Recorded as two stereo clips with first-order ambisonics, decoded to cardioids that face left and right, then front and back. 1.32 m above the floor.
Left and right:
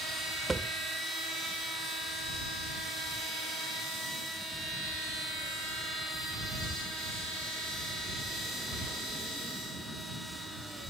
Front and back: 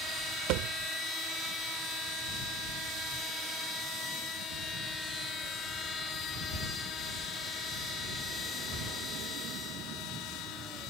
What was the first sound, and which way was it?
A thud, 170° right.